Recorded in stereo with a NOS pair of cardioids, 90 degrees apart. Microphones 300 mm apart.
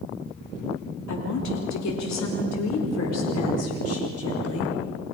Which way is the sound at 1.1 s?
70° left.